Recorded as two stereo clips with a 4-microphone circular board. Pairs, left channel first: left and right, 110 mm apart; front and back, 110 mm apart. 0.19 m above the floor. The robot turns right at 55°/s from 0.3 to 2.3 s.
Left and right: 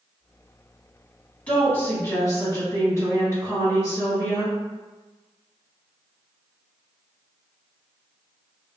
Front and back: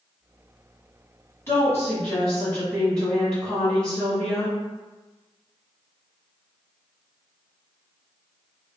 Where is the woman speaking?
25° left, 1.8 m; by 4.5 s 70° left, 1.8 m.